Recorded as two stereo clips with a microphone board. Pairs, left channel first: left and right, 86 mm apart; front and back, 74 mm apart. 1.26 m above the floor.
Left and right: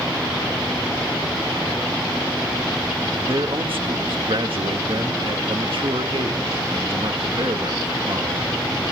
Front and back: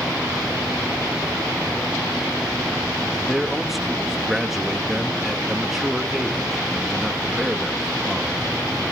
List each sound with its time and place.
3.3 s a man speaking: 95° right, 1.9 m